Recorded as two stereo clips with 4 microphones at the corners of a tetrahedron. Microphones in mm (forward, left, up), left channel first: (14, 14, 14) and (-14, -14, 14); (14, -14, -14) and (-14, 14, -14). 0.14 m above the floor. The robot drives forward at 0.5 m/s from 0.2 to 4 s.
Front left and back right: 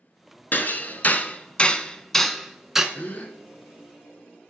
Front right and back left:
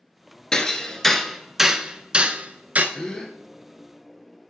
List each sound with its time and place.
0.5 s hammering: 20° left, 0.9 m; by 2.9 s 150° left, 0.8 m
3.0 s a gasp: 25° left, 1.4 m; by 3.4 s 30° left, 1.3 m